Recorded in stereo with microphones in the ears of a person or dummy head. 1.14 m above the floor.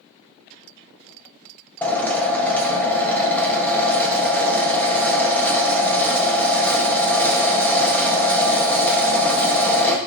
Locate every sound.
1.8 s a drill: 10° left (ahead or behind), 1.2 m